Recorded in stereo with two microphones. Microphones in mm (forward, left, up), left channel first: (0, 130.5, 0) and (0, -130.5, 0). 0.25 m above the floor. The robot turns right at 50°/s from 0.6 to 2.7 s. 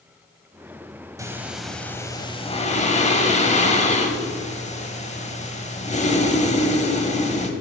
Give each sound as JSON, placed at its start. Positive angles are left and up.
{"t": 1.2, "sound": "breathing", "azimuth_deg": -20, "distance_m": 0.9}